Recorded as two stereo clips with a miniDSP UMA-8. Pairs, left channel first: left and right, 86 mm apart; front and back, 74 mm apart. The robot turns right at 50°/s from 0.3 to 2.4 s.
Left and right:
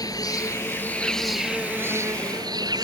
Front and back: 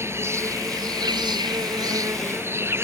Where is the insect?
130° left; by 2.8 s 125° right.